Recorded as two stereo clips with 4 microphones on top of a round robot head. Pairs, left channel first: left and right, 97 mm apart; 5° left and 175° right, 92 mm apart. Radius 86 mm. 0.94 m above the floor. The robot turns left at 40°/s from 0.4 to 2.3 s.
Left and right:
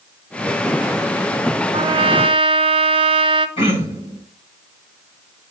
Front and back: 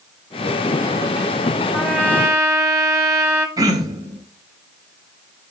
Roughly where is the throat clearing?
Behind left.